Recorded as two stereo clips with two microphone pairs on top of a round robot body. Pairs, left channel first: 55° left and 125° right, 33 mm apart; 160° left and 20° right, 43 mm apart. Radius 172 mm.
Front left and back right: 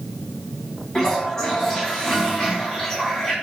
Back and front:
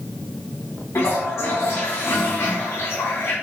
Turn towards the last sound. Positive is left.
turn(degrees=130)